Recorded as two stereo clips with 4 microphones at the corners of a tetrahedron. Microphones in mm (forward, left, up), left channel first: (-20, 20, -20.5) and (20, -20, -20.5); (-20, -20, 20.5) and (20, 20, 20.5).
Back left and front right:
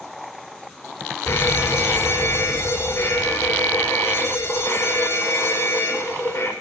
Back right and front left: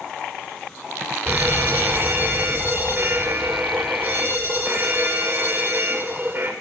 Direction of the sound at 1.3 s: 95° left.